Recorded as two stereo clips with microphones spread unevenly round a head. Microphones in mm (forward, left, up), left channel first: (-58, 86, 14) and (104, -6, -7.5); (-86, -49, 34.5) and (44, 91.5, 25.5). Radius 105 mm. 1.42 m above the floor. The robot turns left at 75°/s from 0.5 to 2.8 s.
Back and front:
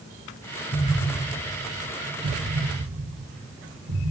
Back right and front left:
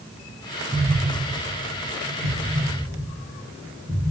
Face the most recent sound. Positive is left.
turn(degrees=-30)